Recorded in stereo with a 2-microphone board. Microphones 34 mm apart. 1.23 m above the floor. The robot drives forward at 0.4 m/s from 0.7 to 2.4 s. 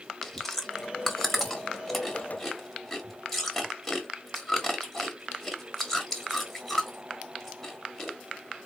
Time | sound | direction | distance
0.2 | chewing | 5° left (ahead or behind) | 1.1 m